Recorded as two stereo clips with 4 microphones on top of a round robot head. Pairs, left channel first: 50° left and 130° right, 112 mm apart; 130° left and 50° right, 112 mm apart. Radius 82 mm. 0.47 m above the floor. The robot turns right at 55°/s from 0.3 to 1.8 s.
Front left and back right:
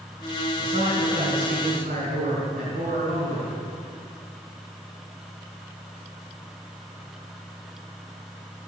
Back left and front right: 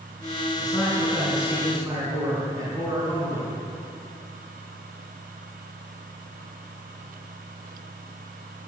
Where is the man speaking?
175° right, 5 m; by 3.6 s 110° right, 5 m.